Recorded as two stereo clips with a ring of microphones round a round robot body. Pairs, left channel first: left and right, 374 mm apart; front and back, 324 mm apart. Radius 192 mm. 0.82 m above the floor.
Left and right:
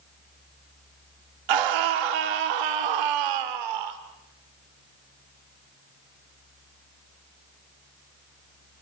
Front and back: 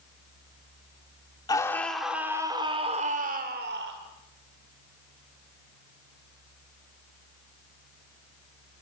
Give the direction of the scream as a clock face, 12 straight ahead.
3 o'clock.